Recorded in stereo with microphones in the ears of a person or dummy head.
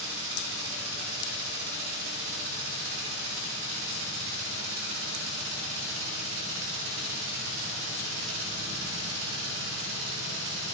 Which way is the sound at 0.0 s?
75° right (ahead or behind).